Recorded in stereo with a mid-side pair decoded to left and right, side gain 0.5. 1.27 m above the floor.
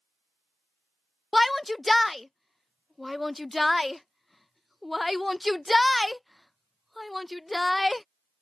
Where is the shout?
15° left.